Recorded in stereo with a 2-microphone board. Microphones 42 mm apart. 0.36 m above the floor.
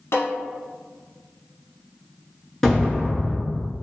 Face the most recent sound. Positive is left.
turn(degrees=10)  # may be behind; listen again after turning